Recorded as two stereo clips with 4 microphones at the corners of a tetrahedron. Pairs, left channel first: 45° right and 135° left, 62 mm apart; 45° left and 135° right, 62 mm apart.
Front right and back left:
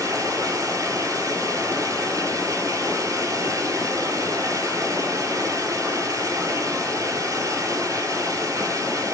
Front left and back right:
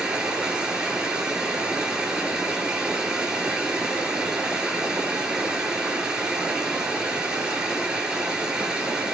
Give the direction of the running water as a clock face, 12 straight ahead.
7 o'clock.